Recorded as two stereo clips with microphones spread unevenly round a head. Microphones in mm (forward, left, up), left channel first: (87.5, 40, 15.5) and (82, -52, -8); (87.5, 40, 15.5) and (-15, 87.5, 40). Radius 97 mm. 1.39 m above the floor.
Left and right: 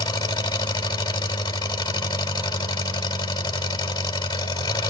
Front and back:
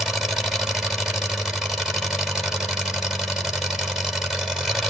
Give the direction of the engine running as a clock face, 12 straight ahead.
9 o'clock.